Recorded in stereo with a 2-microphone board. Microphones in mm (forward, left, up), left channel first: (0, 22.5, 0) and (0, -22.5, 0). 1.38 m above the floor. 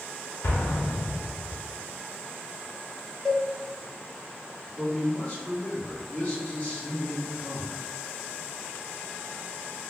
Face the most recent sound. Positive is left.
turn(degrees=30)  # may be behind; listen again after turning